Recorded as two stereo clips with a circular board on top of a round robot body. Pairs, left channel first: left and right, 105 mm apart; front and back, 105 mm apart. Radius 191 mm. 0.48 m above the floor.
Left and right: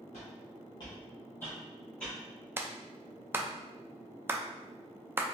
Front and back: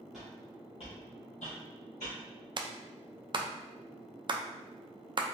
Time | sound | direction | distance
0.1 | footsteps | 95° left | 0.7 m
2.6 | a clap | 155° right | 0.5 m